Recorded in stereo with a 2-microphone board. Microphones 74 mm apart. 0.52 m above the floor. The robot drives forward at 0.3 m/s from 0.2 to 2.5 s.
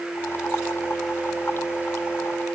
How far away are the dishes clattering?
I don't hear dishes clattering.